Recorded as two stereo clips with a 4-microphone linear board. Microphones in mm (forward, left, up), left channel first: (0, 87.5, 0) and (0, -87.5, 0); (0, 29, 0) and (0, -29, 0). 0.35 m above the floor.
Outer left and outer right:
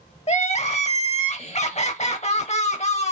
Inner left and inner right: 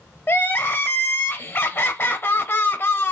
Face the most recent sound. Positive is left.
turn(degrees=40)  # may be behind; listen again after turning